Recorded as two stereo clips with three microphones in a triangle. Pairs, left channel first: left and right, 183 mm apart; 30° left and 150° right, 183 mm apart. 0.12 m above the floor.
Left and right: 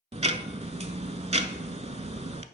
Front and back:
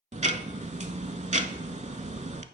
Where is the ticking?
125° right, 0.5 m.